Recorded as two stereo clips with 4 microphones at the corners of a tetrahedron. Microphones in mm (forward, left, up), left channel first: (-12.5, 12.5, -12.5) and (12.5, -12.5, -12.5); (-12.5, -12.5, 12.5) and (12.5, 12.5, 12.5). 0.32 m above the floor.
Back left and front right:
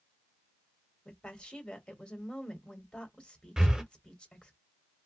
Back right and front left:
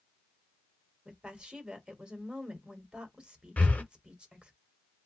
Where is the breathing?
115° right, 0.7 m.